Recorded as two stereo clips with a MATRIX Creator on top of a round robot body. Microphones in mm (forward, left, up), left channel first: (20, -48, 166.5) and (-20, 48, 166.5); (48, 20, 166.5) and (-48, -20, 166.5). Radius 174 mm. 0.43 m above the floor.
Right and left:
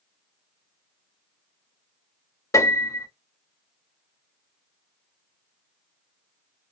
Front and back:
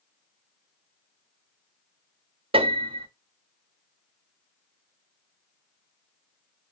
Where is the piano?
130° right, 1.1 m.